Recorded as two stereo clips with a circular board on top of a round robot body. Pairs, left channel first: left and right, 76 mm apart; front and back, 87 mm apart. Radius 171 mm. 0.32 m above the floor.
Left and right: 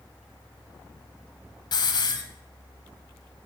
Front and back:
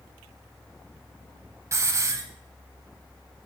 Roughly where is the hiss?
Behind left.